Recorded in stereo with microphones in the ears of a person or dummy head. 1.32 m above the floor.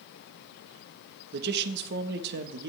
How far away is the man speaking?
About 1.2 m.